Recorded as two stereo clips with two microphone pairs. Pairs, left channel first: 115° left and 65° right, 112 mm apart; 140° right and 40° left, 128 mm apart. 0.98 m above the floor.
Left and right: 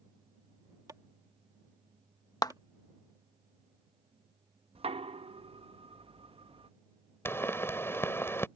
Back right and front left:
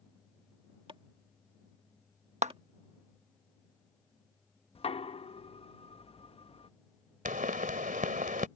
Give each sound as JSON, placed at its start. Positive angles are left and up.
{"t": 0.9, "sound": "chopping", "azimuth_deg": -5}
{"t": 2.4, "sound": "a clap", "azimuth_deg": 65}
{"t": 4.8, "sound": "knocking", "azimuth_deg": -95}
{"t": 7.2, "sound": "a pop", "azimuth_deg": 45}